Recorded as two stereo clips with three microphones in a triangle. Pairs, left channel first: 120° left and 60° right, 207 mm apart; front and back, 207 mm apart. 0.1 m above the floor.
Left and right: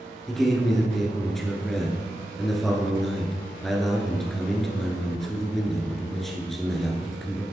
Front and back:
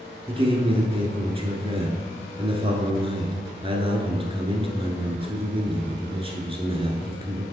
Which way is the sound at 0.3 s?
150° right.